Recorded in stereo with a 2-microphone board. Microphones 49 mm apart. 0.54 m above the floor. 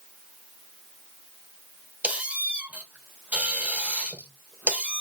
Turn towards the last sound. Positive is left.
turn(degrees=-25)  # may be behind; listen again after turning